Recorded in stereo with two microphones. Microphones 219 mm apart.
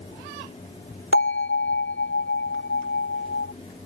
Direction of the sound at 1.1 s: 70° left (ahead or behind).